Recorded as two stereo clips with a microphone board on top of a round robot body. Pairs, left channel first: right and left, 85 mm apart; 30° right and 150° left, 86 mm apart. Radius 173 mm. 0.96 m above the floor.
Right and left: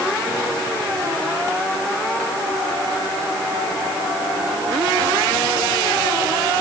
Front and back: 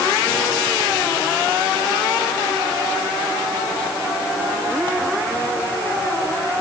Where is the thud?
I don't hear a thud.